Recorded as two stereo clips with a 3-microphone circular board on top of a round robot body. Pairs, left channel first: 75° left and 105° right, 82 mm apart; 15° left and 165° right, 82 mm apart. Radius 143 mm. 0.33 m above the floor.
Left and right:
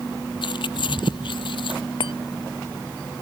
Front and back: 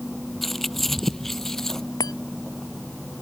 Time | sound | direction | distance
0.4 | keys jangling | 105° left | ?
2.0 | a chime | 60° left | ?